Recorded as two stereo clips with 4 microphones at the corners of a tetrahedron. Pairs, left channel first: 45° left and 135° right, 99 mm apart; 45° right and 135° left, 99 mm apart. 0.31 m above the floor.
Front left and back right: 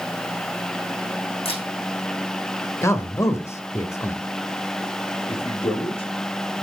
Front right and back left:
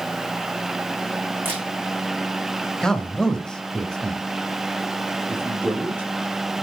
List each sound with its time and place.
1.4 s a camera shutter: 65° left, 5.5 m
2.8 s a man speaking: 30° left, 1.3 m
5.3 s a man speaking: 60° left, 5 m